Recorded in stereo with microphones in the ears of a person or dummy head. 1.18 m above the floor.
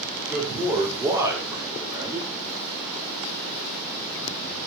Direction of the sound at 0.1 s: 10° right (ahead or behind).